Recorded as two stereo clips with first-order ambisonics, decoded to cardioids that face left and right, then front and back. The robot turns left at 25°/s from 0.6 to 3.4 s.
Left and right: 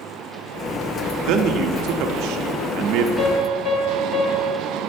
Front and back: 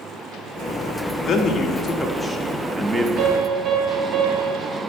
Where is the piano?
150° left, 1.3 m; by 4.7 s 145° left, 1.3 m.